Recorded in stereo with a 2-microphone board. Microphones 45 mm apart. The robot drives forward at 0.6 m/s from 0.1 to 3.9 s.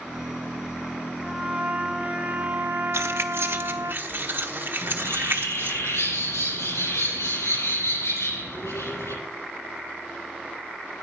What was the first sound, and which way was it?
A trumpet, 20° right (ahead or behind).